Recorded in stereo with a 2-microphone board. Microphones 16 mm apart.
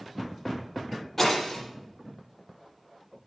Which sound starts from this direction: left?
Breaking glass, at 1.2 s.